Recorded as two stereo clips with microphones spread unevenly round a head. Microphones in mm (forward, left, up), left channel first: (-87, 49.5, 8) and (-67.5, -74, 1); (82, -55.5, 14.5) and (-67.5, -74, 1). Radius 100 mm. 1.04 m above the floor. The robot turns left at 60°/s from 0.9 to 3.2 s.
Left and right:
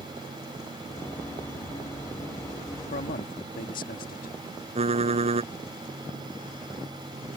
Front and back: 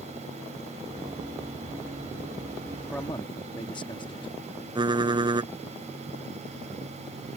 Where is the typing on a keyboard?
110° right.